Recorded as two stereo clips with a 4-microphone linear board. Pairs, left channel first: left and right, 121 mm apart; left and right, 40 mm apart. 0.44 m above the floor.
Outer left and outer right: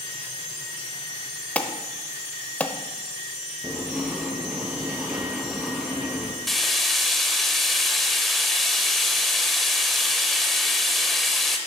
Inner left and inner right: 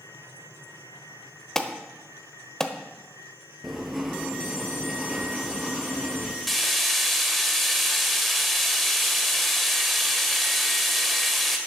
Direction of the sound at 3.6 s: Centre (ahead or behind).